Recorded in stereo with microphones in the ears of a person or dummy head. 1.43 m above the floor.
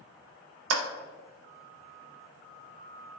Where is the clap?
85° right, 0.5 m.